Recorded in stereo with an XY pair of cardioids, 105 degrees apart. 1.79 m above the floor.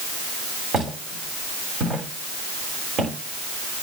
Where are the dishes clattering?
No dishes clattering in this recording.